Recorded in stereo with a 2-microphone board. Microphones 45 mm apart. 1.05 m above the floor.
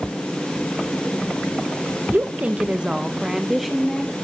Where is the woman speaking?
45° right (ahead or behind), 0.8 m; by 4.1 s 5° left (ahead or behind), 1.7 m.